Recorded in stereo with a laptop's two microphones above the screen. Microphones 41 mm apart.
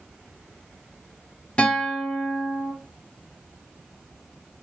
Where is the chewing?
No chewing in this recording.